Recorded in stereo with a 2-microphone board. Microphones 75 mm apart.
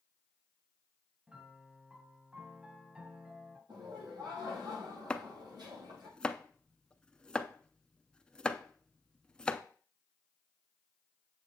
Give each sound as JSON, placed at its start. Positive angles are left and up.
{"t": 1.3, "sound": "a piano", "side_deg": -15, "distance_m": 1.6}
{"t": 3.7, "sound": "laughter", "side_deg": -75, "distance_m": 6.5}
{"t": 5.1, "sound": "chopping", "side_deg": 10, "distance_m": 0.5}